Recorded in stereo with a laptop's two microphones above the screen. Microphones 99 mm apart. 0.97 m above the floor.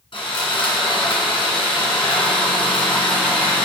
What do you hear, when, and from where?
0.1 s sawing: 60° left (ahead or behind), 1.9 m